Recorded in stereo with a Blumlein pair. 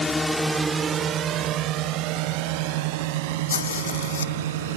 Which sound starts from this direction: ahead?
A drone, at 0.0 s.